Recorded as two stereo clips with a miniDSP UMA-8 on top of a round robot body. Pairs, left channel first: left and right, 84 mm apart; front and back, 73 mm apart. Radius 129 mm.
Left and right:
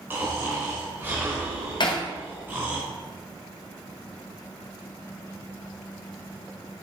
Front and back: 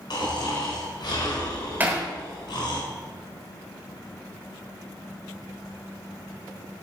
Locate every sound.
0.1 s snoring: 25° right, 1.9 m
1.8 s hammering: 115° left, 1.4 m